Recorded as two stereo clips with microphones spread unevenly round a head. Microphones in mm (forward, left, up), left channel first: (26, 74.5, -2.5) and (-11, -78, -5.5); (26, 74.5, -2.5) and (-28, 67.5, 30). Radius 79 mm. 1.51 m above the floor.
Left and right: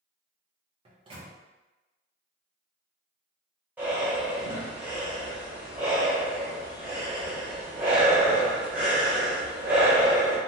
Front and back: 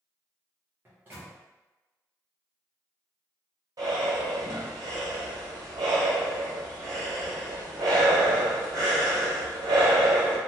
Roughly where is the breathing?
Behind.